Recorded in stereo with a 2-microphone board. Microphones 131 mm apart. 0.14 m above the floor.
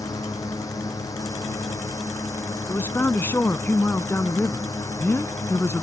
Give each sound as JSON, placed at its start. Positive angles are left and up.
{"t": 0.0, "sound": "a drone", "side_deg": 25}
{"t": 2.7, "sound": "a man speaking", "side_deg": 20}